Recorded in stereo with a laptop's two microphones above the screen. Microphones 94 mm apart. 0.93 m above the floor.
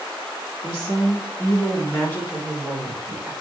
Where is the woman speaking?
45° left (ahead or behind), 1.6 m; by 3.3 s 15° right (ahead or behind), 1.1 m.